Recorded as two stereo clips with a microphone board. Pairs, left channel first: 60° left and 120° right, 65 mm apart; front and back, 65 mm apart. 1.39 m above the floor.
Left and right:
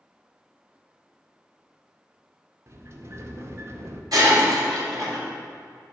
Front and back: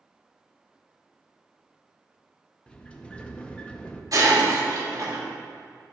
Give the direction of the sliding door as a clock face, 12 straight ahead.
2 o'clock.